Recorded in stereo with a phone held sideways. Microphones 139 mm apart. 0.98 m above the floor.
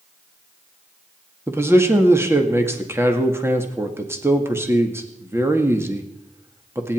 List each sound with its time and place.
1.5 s a man speaking: 20° right (ahead or behind), 2.0 m